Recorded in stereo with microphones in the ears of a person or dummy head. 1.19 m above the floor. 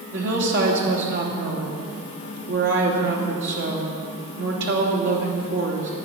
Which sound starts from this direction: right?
A woman speaking, at 0.1 s.